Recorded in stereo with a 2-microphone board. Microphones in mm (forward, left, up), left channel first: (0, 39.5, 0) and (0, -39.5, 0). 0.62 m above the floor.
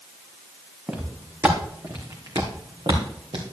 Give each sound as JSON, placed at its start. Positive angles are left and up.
{"t": 0.9, "sound": "footsteps", "side_deg": -15, "distance_m": 2.5}